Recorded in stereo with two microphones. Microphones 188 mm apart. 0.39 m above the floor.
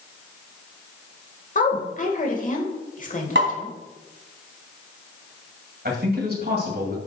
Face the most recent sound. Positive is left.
turn(degrees=-55)  # may be behind; listen again after turning